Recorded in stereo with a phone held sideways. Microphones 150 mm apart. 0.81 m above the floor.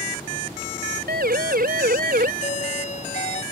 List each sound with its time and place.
1.1 s a siren: 80° right; by 2.3 s 70° right (ahead or behind)
2.4 s a doorbell: 45° left (ahead or behind)